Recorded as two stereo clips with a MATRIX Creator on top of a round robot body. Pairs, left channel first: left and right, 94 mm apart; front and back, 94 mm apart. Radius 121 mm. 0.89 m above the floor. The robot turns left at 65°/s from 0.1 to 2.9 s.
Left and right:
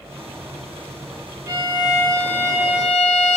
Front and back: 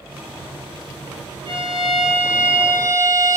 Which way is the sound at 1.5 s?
145° right.